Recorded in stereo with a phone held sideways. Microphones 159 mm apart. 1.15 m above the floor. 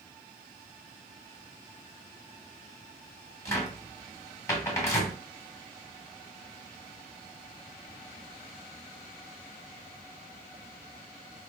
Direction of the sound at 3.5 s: 20° left (ahead or behind).